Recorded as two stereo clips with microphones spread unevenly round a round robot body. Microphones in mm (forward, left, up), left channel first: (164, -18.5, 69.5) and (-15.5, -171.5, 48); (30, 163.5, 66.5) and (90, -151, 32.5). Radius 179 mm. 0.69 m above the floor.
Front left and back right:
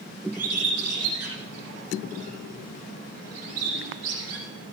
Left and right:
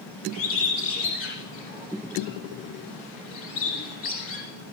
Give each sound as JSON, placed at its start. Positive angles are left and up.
{"t": 0.3, "sound": "a bird", "azimuth_deg": 155, "distance_m": 5.5}